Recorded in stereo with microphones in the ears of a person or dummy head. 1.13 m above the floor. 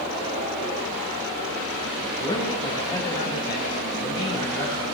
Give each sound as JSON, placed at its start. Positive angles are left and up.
{"t": 2.2, "sound": "a man speaking", "side_deg": 25, "distance_m": 6.5}